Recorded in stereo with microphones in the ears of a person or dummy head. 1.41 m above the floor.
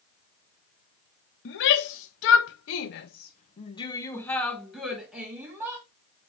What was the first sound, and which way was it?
A shout, 60° left (ahead or behind).